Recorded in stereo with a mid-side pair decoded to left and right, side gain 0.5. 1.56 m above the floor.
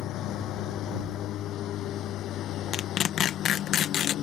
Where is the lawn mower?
70° left; by 4.2 s 65° left.